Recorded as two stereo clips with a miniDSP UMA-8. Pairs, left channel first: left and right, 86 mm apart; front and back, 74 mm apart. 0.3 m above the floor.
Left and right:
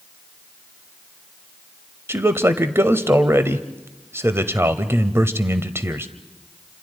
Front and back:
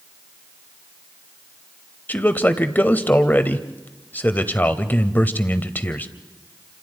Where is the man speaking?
50° right, 1.1 m.